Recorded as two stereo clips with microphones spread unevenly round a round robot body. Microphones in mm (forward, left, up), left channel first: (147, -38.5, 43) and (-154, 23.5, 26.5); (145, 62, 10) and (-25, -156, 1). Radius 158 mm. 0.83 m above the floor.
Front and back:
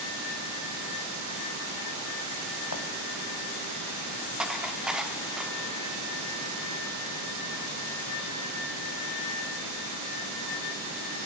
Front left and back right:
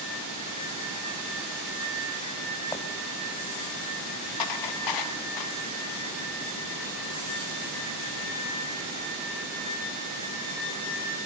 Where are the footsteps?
25° right, 1.2 m.